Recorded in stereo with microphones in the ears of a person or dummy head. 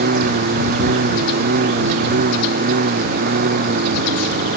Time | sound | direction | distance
0.0 | a lawn mower | 40° right (ahead or behind) | ?